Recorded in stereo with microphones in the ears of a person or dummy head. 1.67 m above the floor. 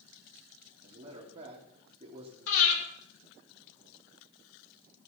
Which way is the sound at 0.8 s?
35° right (ahead or behind).